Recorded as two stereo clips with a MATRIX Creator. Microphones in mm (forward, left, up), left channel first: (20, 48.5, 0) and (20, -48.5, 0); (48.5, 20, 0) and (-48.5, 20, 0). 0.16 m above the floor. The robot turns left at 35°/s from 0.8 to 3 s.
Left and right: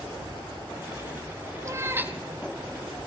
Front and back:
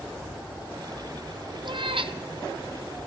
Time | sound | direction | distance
1.6 | a cat meowing | 145° right | 0.6 m